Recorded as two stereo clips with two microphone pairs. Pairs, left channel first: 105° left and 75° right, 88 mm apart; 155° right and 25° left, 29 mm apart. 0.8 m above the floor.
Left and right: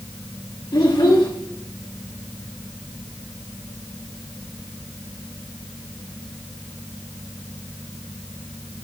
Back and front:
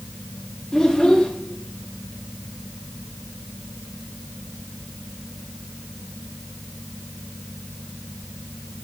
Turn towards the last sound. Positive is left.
turn(degrees=135)